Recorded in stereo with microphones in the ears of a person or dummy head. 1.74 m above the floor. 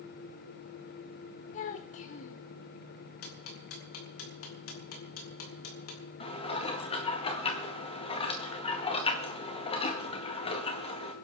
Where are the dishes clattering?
35° left (ahead or behind), 1.7 m.